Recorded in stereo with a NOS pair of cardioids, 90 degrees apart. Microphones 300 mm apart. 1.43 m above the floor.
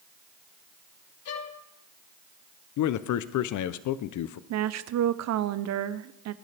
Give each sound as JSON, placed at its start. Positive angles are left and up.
{"t": 1.2, "sound": "a violin", "azimuth_deg": 50, "distance_m": 1.6}
{"t": 2.8, "sound": "a man speaking", "azimuth_deg": 70, "distance_m": 0.6}
{"t": 4.5, "sound": "a woman speaking", "azimuth_deg": -60, "distance_m": 0.7}